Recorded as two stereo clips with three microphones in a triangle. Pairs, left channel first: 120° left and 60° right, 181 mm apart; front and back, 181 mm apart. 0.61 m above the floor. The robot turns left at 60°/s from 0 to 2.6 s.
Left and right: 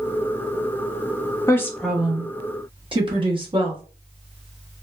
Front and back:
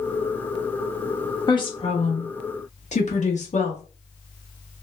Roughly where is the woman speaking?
Ahead left.